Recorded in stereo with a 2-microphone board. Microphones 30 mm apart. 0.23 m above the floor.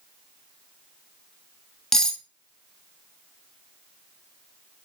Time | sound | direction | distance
1.9 | cutlery clinking | 15° left (ahead or behind) | 0.6 m